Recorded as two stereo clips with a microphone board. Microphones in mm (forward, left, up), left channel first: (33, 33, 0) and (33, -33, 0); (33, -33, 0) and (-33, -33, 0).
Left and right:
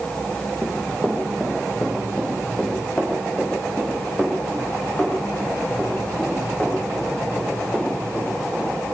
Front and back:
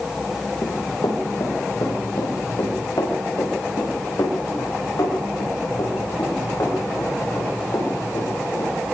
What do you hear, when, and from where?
0.6 s running footsteps: 15° left, 5 m; by 8.7 s 25° left, 11.5 m